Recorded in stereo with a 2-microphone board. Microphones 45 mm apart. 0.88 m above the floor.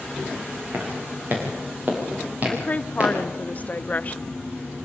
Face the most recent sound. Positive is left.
turn(degrees=40)  # may be behind; listen again after turning